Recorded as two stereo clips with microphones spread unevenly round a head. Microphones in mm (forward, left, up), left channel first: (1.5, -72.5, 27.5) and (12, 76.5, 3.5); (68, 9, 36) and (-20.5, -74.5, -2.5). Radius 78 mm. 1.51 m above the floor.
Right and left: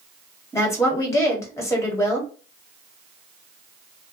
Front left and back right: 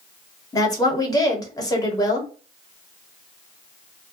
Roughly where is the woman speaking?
Ahead.